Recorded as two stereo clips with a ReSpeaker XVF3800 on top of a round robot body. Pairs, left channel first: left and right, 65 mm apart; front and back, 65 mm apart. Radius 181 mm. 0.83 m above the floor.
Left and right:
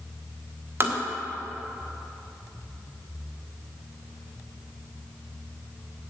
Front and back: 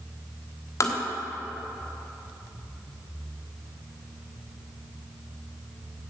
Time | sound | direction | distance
0.8 | tapping | 40° right | 1.5 m